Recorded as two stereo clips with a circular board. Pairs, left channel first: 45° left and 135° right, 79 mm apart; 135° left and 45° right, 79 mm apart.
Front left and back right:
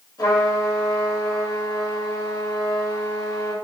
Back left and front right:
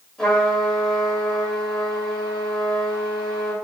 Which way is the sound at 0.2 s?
55° left.